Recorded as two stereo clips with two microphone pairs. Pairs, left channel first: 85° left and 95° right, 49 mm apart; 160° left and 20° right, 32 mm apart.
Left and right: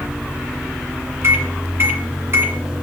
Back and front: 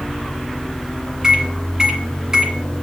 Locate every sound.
1.2 s a microwave: 85° right, 1.9 m